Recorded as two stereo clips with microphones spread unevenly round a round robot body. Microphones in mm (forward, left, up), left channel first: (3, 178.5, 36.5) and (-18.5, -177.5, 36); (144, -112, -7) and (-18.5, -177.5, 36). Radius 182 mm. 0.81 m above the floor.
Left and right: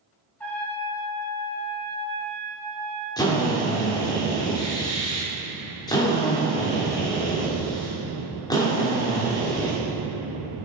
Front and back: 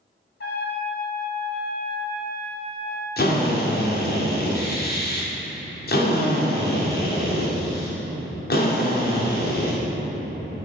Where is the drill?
5° left, 2 m.